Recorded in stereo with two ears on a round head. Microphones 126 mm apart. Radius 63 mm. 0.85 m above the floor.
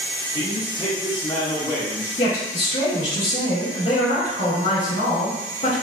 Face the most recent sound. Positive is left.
turn(degrees=40)  # may be behind; listen again after turning